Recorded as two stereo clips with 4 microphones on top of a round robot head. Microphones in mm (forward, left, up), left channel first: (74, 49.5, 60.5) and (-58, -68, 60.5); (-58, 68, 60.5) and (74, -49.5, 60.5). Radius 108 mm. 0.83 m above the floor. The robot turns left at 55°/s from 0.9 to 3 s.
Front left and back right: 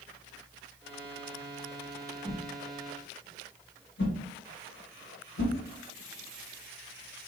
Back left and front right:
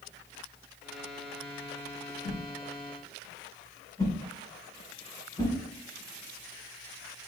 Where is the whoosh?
110° left, 1.0 m; by 5.5 s 70° left, 1.0 m.